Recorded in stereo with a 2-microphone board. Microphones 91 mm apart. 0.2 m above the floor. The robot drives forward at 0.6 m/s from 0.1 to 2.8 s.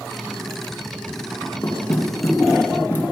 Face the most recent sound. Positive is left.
turn(degrees=25)  # may be behind; listen again after turning